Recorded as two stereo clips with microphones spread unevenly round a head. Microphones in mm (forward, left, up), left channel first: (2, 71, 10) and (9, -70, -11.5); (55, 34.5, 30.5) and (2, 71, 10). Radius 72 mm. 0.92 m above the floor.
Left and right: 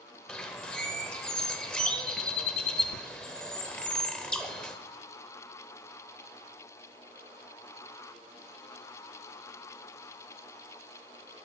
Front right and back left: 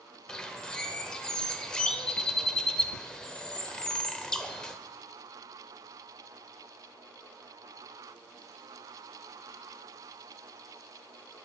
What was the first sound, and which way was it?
A bird, 20° left.